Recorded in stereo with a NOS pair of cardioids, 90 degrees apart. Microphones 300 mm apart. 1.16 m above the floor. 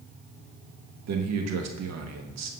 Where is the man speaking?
65° right, 1.3 m.